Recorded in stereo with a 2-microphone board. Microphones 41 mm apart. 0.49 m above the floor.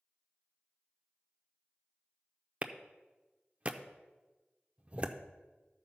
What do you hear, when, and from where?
2.6 s a clap: 30° right (ahead or behind), 0.6 m